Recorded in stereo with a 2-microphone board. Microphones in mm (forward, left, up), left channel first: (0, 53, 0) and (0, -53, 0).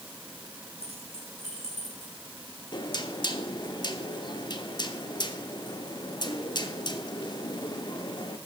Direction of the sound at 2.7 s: 45° left (ahead or behind).